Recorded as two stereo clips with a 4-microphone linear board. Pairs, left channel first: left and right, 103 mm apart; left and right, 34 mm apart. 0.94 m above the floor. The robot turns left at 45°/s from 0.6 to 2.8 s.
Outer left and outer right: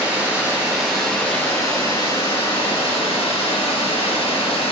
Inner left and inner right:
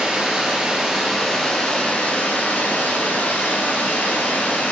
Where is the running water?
165° right, 3 m; by 4.7 s 100° left, 3 m.